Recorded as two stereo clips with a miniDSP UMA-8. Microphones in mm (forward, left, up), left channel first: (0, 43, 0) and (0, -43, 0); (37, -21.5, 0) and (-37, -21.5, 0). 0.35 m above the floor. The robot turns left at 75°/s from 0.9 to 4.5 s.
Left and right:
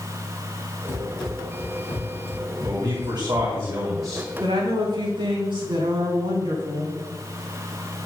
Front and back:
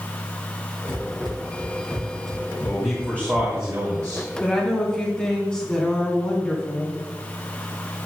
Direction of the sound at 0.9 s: 160° right.